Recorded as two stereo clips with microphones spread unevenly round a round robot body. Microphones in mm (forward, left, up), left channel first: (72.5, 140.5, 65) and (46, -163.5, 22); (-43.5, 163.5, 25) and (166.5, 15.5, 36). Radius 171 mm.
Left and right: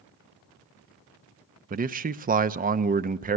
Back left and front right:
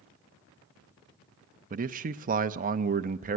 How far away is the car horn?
I don't hear a car horn.